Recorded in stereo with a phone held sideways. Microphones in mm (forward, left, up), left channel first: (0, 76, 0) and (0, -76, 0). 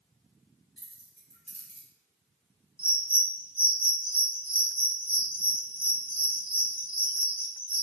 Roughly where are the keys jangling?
Left.